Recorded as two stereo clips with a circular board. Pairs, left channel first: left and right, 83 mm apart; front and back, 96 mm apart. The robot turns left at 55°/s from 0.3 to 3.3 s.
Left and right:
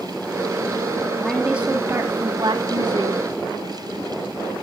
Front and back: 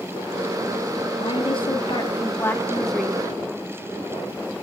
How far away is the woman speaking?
About 2.5 m.